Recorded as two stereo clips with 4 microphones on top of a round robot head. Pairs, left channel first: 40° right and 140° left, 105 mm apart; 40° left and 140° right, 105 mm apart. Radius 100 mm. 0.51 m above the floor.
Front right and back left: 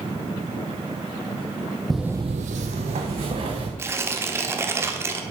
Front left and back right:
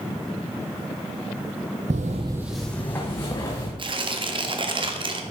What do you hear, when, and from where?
1.9 s footsteps: 125° right, 0.8 m; by 3.7 s 105° left, 2.5 m
3.8 s tearing paper: 160° right, 1.3 m